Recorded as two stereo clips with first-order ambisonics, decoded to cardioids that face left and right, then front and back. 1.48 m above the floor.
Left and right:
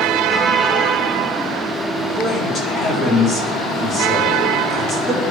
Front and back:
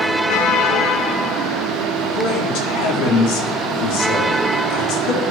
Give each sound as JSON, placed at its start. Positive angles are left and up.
{"t": 2.1, "sound": "a man speaking", "azimuth_deg": 30, "distance_m": 4.5}